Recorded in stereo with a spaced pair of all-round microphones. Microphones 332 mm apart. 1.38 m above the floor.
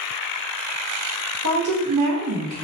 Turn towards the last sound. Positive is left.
turn(degrees=-50)  # may be behind; listen again after turning